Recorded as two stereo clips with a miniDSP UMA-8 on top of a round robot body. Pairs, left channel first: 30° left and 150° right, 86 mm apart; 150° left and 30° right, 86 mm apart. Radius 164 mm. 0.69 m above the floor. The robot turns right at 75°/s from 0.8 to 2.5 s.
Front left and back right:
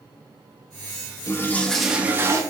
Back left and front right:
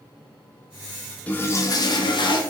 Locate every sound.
1.3 s a toilet flushing: 80° left, 0.6 m; by 2.4 s 165° left, 0.6 m